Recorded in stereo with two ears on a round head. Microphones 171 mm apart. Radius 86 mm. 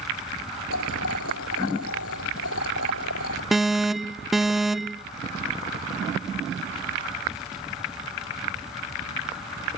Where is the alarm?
Centre (ahead or behind).